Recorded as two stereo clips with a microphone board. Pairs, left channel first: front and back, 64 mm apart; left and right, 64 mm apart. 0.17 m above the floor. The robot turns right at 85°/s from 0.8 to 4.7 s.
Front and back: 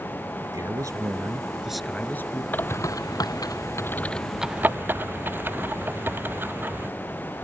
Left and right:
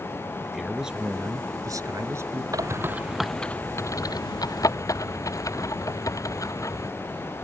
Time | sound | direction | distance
0.4 | a man speaking | 175° right | ?
2.5 | a bird | 65° right | ?